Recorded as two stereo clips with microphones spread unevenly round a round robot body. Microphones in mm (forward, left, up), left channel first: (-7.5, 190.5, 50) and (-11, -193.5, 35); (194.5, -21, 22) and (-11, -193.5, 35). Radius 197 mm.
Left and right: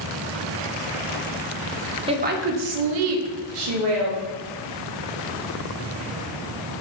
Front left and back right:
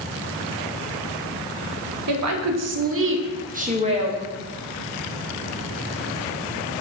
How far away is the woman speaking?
About 1.1 m.